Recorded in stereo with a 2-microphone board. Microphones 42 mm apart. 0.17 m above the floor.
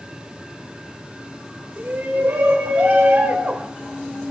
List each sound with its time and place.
1.8 s a shout: 55° right (ahead or behind), 4 m; by 3.7 s 25° right (ahead or behind), 1.4 m